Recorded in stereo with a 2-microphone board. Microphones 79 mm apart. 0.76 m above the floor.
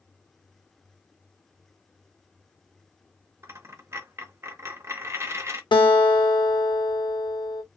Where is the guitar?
75° left (ahead or behind), 0.8 m.